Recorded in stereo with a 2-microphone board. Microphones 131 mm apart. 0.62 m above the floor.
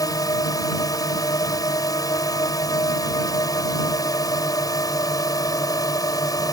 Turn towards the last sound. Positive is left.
turn(degrees=30)  # may be behind; listen again after turning